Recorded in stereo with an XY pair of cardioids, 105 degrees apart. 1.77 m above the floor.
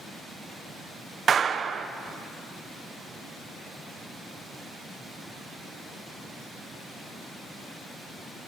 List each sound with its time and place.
1.3 s a clap: 45° right, 1.2 m